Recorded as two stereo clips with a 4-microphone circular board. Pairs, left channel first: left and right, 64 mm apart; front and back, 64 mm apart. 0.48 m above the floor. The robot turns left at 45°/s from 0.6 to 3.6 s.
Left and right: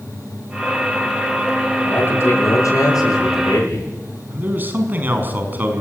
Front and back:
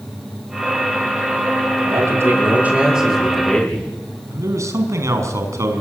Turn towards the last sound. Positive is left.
turn(degrees=-150)